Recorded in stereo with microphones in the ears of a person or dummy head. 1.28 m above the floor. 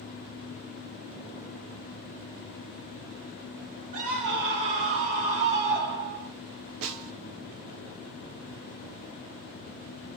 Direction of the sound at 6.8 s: 70° right (ahead or behind).